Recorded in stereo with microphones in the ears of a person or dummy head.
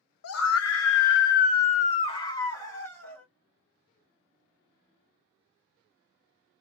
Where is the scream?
85° left, 0.8 m; by 3.2 s centre (ahead or behind), 1.4 m.